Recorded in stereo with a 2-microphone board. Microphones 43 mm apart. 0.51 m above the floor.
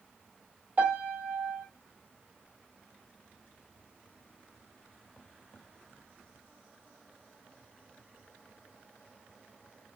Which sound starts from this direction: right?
A piano, at 0.8 s.